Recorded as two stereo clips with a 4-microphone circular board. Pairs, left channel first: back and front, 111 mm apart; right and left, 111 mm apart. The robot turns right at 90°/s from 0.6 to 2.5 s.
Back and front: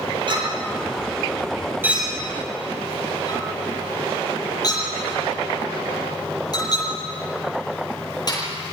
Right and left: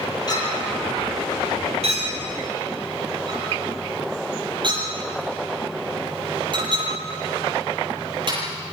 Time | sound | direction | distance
0.3 | a clink | 40° right | 10 m